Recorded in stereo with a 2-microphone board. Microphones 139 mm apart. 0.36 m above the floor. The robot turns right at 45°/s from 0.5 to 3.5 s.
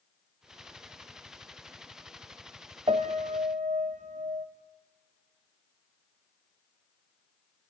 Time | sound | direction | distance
2.9 | a piano | 40° right (ahead or behind) | 1.2 m